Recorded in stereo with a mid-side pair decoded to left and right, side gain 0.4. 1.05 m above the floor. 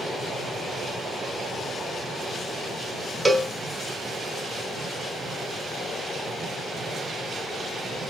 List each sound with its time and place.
3.2 s a cowbell: 20° right, 0.6 m